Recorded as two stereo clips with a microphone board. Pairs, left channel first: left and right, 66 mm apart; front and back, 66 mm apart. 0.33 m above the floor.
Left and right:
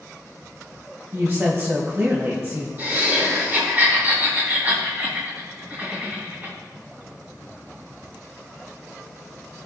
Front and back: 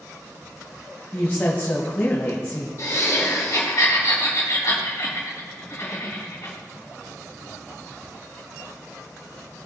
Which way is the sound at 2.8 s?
35° right.